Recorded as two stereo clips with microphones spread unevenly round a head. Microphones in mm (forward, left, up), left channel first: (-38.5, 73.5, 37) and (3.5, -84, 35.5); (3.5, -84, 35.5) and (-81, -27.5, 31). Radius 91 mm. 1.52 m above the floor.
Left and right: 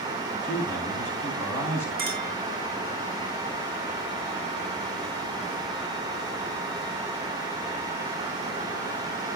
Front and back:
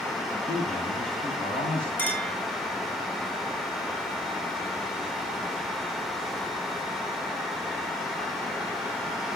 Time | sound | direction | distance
0.4 | a man speaking | 25° left | 9.5 m
2.0 | a clink | 105° right | 5 m